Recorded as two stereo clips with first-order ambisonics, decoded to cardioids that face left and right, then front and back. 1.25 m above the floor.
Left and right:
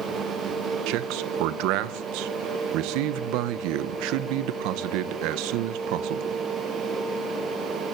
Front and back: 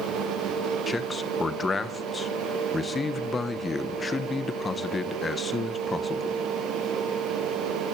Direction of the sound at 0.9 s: 75° right.